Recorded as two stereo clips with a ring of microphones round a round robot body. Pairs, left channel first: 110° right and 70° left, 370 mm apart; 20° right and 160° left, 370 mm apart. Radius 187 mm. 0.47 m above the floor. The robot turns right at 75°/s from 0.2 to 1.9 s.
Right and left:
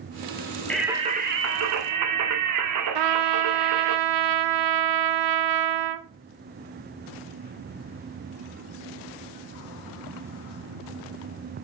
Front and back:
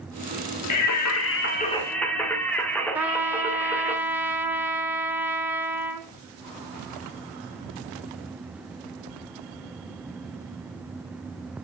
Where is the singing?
30° right, 1.0 m; by 4.0 s 60° left, 1.0 m.